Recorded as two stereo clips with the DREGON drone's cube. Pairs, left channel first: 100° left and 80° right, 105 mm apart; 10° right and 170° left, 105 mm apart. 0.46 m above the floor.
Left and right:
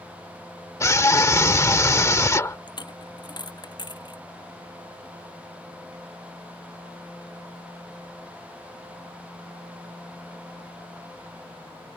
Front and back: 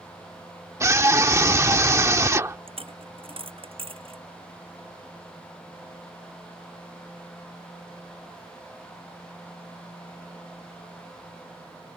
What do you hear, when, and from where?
0.8 s a scream: 130° left
2.7 s a dropped coin: 145° left